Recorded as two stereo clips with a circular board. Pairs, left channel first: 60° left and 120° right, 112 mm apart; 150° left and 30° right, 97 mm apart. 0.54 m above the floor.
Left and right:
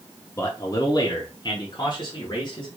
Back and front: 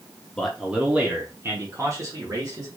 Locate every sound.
0.4 s a man speaking: 75° left, 0.6 m; by 2.7 s 15° left, 1.5 m